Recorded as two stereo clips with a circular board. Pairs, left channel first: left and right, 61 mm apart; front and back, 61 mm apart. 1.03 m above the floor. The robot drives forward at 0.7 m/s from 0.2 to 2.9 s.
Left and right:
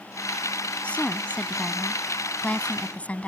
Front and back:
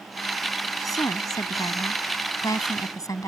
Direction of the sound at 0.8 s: 20° left.